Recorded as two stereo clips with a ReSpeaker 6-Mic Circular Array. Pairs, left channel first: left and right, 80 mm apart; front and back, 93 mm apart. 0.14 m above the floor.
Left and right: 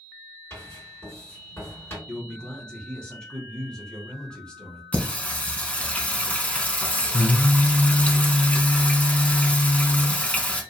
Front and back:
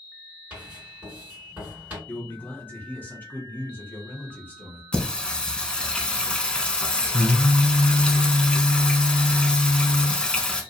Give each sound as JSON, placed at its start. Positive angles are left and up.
{"t": 0.5, "sound": "writing", "azimuth_deg": 120, "distance_m": 2.0}
{"t": 2.1, "sound": "a man speaking", "azimuth_deg": 30, "distance_m": 1.1}
{"t": 4.9, "sound": "singing", "azimuth_deg": 60, "distance_m": 0.5}